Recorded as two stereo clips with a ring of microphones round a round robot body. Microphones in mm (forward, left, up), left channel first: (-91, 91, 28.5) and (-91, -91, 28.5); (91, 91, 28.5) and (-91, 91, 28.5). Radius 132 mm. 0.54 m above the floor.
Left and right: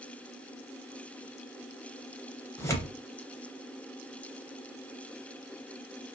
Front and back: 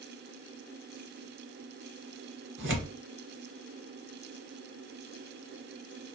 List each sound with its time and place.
2.6 s tearing paper: 165° left, 0.9 m